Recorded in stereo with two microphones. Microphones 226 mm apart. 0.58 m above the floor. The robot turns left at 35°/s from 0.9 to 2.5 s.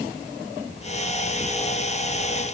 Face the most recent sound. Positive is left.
No sound to turn to.